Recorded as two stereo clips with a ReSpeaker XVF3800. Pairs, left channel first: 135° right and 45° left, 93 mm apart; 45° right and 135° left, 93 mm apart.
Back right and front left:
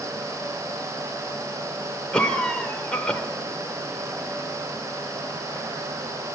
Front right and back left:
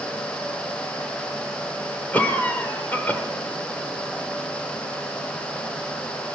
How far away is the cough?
About 1.1 m.